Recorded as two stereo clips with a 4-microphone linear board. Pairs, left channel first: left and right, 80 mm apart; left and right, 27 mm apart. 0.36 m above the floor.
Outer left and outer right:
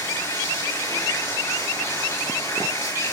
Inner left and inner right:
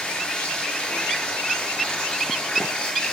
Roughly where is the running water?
Left.